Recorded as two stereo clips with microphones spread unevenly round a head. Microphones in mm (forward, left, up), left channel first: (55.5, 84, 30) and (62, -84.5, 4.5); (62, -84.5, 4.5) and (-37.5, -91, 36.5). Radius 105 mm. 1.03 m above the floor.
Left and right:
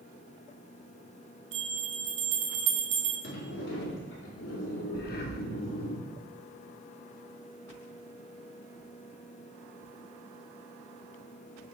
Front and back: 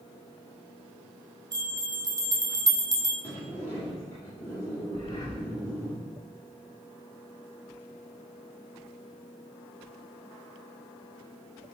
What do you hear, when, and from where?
1.5 s a bell: 145° right, 0.8 m
3.2 s a sliding door: 85° left, 2 m
4.9 s breathing: 80° left, 0.9 m